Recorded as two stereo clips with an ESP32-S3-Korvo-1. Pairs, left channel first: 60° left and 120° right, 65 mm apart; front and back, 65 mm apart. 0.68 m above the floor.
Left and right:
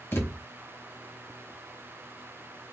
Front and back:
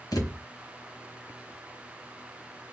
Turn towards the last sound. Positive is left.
turn(degrees=10)